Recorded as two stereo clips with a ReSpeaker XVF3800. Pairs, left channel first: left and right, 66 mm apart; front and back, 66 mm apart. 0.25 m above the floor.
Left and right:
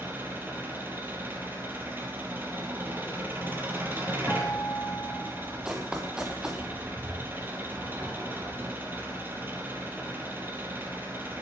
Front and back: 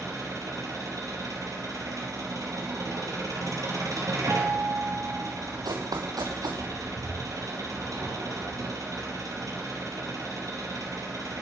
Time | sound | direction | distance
0.0 | an engine running | 145° right | 3 m
4.3 | a guitar | 150° left | 1.3 m
5.7 | running footsteps | 165° right | 1.9 m